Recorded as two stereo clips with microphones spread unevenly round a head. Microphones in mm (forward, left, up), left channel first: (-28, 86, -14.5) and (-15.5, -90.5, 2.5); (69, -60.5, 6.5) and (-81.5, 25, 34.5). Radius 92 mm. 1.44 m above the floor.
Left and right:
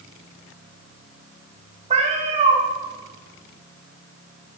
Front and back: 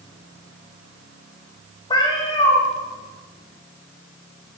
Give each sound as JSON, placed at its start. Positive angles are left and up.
{"t": 1.9, "sound": "a cat meowing", "azimuth_deg": -95, "distance_m": 0.8}